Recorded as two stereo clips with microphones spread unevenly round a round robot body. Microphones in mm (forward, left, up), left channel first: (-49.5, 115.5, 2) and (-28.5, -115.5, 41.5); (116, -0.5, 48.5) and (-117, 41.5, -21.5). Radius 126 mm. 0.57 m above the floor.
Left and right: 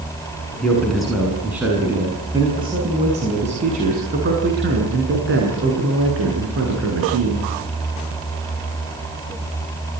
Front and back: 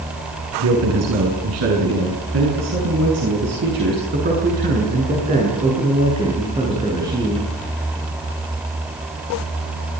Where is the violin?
No violin in this recording.